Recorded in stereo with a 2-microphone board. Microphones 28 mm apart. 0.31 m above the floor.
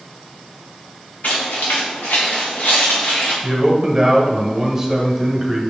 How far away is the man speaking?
About 1.4 m.